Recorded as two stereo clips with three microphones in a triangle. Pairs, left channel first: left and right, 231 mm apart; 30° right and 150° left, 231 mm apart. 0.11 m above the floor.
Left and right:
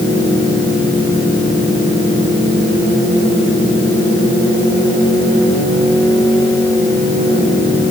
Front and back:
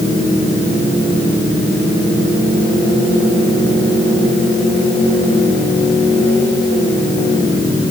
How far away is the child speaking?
I don't hear a child speaking.